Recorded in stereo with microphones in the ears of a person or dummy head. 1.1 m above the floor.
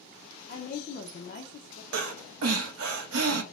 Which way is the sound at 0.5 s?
35° left (ahead or behind).